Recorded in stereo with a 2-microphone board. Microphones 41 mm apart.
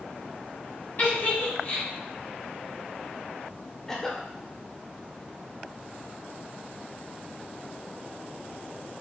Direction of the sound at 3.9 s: 10° left (ahead or behind).